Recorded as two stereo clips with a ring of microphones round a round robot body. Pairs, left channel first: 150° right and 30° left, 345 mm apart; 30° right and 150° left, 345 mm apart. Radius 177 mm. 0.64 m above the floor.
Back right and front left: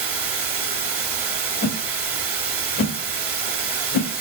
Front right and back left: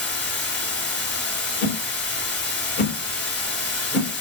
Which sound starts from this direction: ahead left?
Running water, at 0.0 s.